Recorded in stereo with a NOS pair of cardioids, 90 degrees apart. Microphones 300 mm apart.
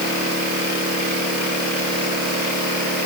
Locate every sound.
Only background noise.